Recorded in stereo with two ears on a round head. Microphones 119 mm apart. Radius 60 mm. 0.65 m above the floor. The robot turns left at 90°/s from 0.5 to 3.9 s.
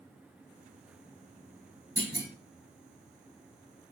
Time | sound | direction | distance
2.0 | a clunk | 20° right (ahead or behind) | 3 m